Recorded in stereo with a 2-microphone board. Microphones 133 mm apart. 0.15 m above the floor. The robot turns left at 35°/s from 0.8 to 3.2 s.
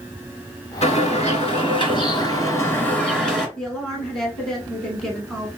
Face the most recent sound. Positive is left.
turn(degrees=5)  # may be behind; listen again after turning